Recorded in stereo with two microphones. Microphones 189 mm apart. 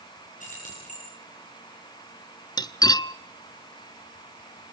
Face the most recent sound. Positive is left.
turn(degrees=25)  # may be behind; listen again after turning